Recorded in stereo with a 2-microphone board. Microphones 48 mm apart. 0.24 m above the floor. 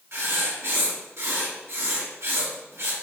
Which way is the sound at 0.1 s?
65° right (ahead or behind).